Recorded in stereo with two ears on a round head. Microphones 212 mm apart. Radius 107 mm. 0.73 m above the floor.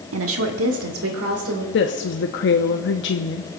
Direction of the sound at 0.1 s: 65° right (ahead or behind).